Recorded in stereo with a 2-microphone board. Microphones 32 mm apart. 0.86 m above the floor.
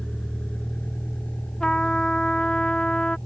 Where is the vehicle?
30° left (ahead or behind); by 3.3 s 70° left (ahead or behind).